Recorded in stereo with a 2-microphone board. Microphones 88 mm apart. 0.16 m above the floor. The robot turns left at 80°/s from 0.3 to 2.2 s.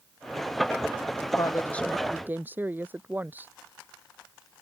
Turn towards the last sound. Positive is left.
turn(degrees=-20)